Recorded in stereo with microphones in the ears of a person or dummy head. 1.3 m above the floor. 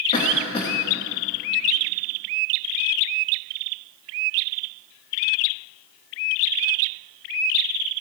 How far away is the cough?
About 1.6 m.